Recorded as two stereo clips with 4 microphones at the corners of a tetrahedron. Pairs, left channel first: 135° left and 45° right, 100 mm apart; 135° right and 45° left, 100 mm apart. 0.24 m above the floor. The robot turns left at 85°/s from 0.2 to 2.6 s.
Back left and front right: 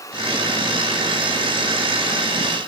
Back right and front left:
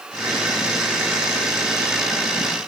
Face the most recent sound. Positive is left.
No sound to turn to.